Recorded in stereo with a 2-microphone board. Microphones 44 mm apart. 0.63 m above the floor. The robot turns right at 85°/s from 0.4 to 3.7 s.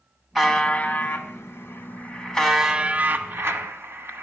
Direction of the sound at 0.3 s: 5° right.